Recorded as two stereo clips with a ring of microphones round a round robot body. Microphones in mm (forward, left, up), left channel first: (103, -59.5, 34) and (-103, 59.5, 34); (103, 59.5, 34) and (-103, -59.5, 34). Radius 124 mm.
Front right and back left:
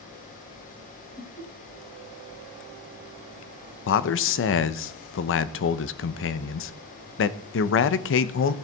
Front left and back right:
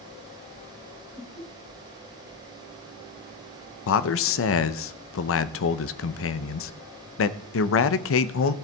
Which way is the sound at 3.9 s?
5° left.